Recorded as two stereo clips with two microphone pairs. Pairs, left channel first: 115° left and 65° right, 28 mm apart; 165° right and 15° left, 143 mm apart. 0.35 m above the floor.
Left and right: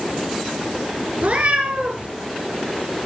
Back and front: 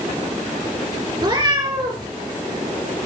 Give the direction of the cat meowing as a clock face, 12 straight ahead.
1 o'clock.